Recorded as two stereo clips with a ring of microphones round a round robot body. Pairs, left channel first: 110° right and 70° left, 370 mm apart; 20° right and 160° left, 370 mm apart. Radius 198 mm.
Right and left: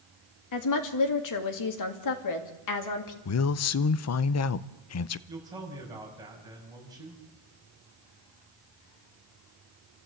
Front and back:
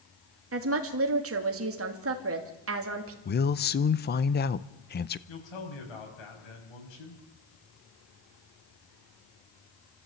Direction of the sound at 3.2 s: 80° right.